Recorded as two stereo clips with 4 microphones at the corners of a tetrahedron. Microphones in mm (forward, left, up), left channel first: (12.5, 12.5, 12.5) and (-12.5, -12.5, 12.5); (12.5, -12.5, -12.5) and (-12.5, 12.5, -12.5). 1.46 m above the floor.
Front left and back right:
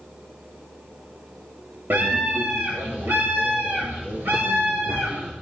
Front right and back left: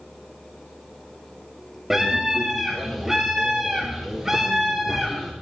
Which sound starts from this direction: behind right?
A scream, at 1.9 s.